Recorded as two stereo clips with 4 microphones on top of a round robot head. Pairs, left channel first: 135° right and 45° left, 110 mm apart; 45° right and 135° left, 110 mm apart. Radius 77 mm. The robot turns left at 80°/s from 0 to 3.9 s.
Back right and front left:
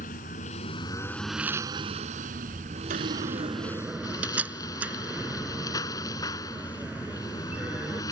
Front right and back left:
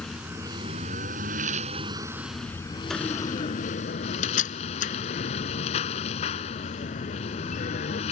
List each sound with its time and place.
0.0 s a lawn mower: 125° right; by 8.1 s 75° right
2.9 s a door slam: 45° left; by 8.0 s 35° right